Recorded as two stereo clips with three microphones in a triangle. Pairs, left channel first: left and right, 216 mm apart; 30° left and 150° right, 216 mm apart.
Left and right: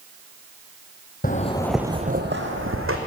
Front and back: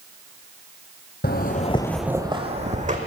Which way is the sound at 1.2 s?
55° left.